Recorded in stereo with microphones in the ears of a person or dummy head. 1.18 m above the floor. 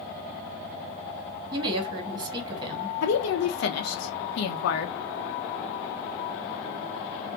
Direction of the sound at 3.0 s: 70° left (ahead or behind).